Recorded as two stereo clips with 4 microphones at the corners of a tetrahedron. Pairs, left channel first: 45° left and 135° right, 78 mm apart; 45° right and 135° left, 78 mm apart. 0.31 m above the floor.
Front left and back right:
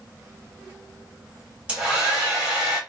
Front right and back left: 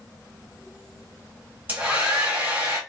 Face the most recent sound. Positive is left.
turn(degrees=170)